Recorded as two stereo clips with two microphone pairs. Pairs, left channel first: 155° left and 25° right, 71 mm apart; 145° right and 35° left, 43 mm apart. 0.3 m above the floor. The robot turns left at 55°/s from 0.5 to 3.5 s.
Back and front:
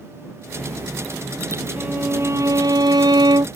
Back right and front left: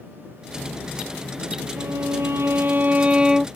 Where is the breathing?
No breathing in this recording.